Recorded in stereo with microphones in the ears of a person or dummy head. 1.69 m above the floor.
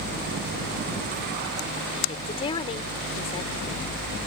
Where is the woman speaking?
30° left (ahead or behind).